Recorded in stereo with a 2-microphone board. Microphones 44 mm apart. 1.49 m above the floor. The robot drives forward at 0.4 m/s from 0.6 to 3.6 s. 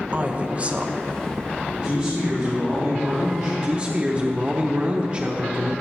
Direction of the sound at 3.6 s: 25° right (ahead or behind).